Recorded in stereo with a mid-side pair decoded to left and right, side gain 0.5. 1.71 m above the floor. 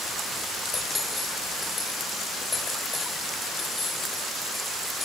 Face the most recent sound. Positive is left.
turn(degrees=30)